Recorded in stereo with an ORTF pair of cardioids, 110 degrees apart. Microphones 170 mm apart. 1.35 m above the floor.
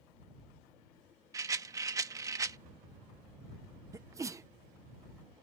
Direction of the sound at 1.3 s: 20° right.